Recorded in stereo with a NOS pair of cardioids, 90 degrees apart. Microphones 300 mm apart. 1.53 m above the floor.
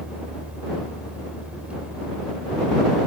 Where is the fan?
5° right.